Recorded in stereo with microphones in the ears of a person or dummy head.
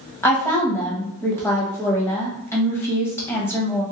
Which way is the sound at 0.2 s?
10° left (ahead or behind).